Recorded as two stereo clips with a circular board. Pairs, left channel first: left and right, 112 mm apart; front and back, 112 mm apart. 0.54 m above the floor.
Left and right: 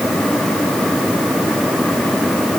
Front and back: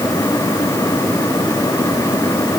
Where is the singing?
No singing in this recording.